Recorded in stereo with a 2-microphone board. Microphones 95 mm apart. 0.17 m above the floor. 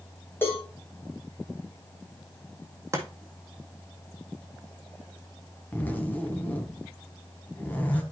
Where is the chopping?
30° right (ahead or behind), 1.7 m.